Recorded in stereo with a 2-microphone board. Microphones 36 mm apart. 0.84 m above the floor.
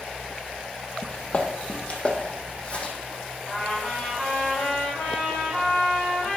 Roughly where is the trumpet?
Centre.